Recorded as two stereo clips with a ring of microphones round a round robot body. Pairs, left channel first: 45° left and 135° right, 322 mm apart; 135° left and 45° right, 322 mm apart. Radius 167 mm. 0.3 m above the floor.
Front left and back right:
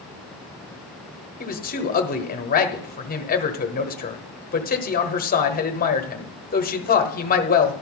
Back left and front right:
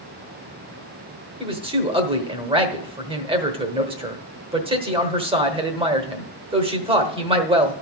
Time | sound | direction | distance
1.4 | a man speaking | 10° left | 1.1 m